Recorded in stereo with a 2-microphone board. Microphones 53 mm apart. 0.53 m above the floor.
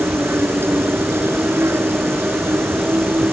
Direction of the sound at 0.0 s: 55° right (ahead or behind).